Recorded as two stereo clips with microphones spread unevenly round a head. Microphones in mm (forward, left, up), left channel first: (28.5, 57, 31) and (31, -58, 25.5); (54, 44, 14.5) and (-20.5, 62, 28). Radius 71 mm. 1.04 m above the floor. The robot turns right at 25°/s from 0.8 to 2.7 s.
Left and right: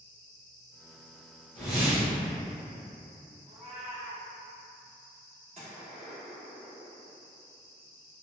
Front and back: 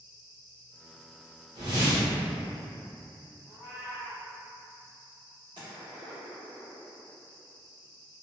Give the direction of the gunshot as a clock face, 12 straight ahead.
5 o'clock.